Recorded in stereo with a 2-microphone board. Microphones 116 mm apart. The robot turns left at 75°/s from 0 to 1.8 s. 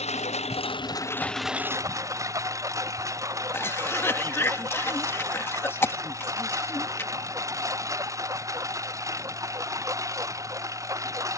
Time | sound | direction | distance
0.0 | a lawn mower | 105° left | ?
3.5 | a cough | 20° left (ahead or behind) | ?